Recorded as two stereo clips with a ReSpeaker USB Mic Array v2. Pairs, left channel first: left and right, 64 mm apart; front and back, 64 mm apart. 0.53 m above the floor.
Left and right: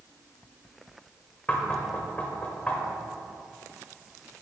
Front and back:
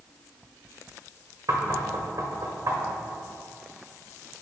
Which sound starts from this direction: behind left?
Knocking, at 1.5 s.